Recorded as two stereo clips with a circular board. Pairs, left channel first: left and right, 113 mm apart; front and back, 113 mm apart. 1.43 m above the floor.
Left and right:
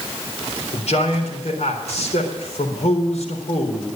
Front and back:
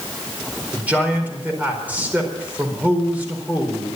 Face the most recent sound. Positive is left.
turn(degrees=105)